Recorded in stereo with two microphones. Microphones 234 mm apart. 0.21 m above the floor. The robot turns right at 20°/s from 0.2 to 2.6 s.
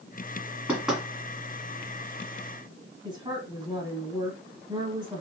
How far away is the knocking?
About 1.8 m.